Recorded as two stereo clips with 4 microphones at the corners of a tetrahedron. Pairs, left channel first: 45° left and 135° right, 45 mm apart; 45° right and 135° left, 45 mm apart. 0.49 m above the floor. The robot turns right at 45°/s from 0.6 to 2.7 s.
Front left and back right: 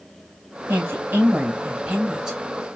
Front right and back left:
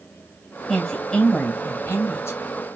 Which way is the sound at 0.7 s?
130° right.